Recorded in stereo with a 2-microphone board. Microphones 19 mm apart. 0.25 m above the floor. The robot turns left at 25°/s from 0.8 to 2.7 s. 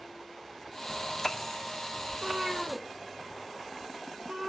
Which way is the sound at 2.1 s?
40° right (ahead or behind).